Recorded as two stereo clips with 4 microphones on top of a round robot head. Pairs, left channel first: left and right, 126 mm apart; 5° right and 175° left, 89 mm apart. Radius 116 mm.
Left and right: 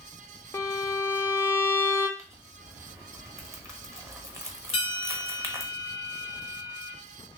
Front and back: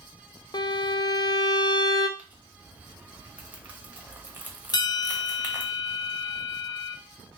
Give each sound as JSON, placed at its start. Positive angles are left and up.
{"t": 0.5, "sound": "a violin", "azimuth_deg": 25, "distance_m": 0.5}
{"t": 2.2, "sound": "crumpling", "azimuth_deg": -135, "distance_m": 1.1}
{"t": 4.7, "sound": "a bell", "azimuth_deg": 35, "distance_m": 0.5}